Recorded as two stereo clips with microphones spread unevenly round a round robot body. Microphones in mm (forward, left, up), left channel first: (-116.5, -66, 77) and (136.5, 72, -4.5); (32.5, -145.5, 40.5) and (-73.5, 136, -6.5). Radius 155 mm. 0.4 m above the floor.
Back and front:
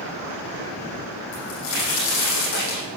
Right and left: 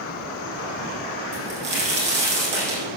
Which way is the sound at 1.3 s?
Straight behind.